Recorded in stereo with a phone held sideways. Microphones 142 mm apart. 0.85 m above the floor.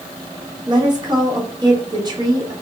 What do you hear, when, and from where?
0.7 s a woman speaking: 30° right (ahead or behind), 1.7 m